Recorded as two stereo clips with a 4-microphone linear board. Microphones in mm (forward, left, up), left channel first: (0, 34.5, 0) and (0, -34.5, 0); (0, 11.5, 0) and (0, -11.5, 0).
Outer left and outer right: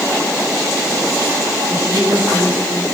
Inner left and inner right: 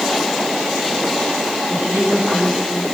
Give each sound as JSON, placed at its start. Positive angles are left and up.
{"t": 1.7, "sound": "a woman speaking", "side_deg": -35, "distance_m": 9.0}